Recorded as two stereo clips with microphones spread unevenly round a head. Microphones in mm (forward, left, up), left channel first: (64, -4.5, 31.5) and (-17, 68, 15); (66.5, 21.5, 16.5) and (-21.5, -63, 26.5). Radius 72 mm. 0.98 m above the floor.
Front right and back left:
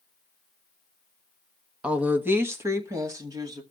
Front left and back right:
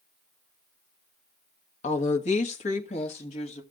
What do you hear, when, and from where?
1.8 s a woman speaking: 60° left, 1.3 m; by 3.6 s 85° left, 2.5 m